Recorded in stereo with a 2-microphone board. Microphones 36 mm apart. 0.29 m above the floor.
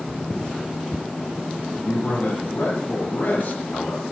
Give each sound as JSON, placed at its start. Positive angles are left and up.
{"t": 1.7, "sound": "a man speaking", "side_deg": 60, "distance_m": 8.5}